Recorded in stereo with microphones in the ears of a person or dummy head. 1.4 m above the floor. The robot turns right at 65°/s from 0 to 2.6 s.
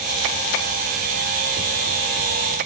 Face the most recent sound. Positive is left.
No sound to turn to.